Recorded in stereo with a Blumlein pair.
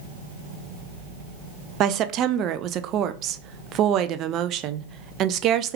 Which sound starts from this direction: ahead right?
A woman speaking, at 1.8 s.